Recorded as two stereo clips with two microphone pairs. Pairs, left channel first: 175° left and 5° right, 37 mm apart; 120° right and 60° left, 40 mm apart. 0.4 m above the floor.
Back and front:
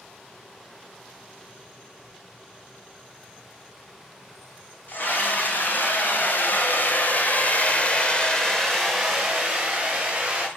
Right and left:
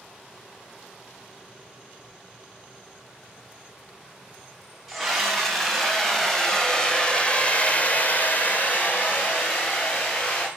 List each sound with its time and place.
4.9 s a scream: 145° left, 3.5 m; by 10.5 s 75° right, 3 m